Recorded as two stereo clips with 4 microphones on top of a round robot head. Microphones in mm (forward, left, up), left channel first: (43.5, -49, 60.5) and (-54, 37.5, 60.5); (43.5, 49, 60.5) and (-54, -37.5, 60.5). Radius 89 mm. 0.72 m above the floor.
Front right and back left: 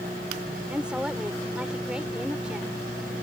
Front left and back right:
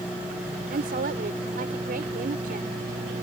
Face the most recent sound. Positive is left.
turn(degrees=-140)